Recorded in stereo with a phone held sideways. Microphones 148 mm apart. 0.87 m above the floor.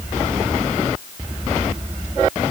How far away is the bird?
I don't hear a bird.